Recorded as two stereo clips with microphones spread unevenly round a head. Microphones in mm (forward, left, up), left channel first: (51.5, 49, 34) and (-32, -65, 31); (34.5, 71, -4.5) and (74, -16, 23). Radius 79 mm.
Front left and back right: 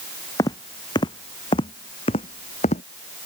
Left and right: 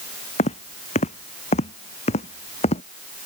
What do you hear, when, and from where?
0.4 s footsteps: 120° left; by 2.8 s 100° left